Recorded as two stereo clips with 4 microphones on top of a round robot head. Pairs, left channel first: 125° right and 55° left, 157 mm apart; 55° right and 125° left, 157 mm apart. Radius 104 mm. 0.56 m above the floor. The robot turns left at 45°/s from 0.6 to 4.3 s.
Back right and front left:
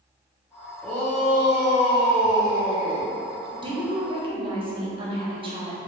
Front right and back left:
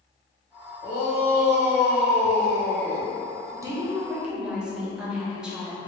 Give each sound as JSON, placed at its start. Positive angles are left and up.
{"t": 0.8, "sound": "a shout", "azimuth_deg": -30, "distance_m": 1.8}
{"t": 3.5, "sound": "a woman speaking", "azimuth_deg": 80, "distance_m": 1.1}